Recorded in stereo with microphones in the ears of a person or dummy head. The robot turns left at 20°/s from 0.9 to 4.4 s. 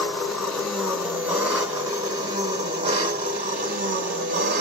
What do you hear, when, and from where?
0.0 s an engine running: straight ahead, 2.0 m; by 4.6 s 70° right, 2.0 m